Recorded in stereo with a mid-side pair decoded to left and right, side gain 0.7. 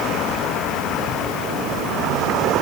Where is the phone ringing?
I don't hear a phone ringing.